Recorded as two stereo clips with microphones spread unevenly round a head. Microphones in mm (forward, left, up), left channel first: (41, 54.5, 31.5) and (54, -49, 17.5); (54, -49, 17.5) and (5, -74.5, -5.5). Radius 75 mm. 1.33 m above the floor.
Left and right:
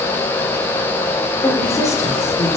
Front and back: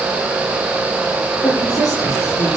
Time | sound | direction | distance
1.4 | a woman speaking | 35° left | 4 m